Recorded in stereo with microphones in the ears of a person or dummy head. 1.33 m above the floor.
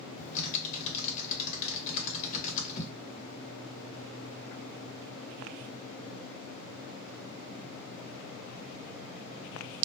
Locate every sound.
0.2 s typing on a keyboard: 45° left (ahead or behind), 1.0 m